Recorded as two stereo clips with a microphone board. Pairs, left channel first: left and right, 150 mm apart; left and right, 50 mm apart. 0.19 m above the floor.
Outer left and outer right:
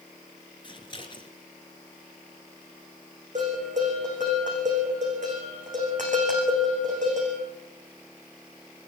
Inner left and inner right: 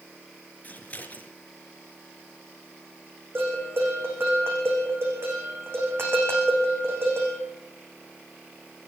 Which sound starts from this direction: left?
Scissors, at 0.6 s.